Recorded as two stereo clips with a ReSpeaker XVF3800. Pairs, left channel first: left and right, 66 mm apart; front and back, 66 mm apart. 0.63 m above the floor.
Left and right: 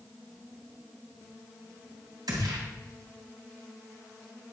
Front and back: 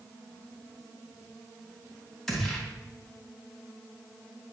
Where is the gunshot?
85° right, 3 m.